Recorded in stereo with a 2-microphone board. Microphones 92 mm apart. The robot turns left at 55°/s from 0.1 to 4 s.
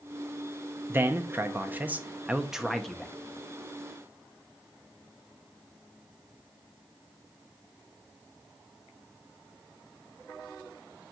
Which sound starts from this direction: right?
A man speaking, at 0.9 s.